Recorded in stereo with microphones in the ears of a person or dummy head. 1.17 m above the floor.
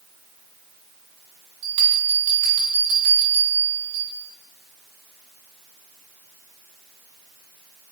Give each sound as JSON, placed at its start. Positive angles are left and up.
{"t": 1.6, "sound": "a bell", "side_deg": -60, "distance_m": 1.2}